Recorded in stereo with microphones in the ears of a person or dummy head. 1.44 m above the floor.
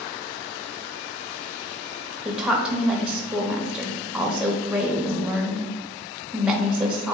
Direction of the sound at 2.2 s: 5° right (ahead or behind).